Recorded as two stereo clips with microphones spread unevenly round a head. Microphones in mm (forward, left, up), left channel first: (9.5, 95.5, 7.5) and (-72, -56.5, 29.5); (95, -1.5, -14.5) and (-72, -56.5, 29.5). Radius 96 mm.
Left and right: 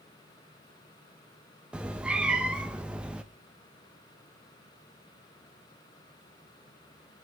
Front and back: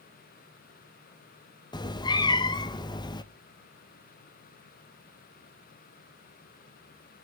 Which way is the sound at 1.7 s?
50° right.